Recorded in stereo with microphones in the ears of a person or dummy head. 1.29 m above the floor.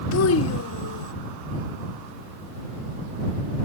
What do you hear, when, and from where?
0.1 s a child speaking: 75° left (ahead or behind); by 1.1 s 80° left